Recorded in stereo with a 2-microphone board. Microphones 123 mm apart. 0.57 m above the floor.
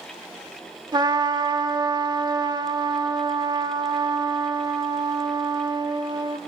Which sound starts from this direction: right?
A trumpet, at 0.9 s.